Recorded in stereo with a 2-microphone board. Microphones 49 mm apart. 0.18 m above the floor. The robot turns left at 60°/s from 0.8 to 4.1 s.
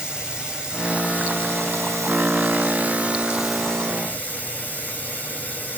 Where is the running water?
15° right, 0.9 m; by 5.8 s 145° left, 0.9 m.